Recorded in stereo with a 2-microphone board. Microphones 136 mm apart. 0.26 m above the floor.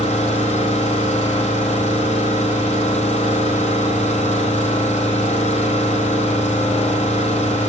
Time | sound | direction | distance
0.0 | an engine running | 55° left (ahead or behind) | 6 m